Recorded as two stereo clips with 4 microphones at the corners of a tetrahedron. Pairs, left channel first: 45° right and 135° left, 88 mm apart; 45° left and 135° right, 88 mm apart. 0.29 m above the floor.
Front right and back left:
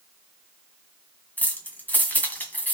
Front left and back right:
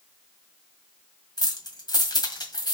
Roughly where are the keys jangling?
Ahead.